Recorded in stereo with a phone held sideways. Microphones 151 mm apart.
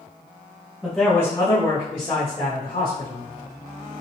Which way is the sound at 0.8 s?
5° right (ahead or behind).